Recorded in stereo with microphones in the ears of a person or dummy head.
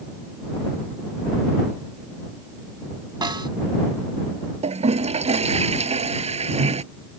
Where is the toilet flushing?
35° right (ahead or behind).